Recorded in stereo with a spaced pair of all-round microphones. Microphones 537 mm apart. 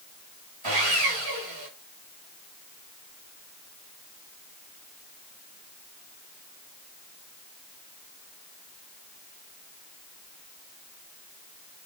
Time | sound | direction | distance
0.6 | sawing | 70° right (ahead or behind) | 6.5 m